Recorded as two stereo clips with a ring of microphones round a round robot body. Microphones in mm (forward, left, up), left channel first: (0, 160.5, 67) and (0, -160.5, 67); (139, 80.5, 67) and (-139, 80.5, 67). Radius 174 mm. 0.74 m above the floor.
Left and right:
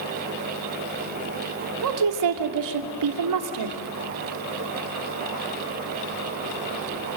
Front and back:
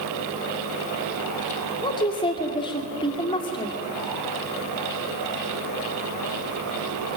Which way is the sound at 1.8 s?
75° right.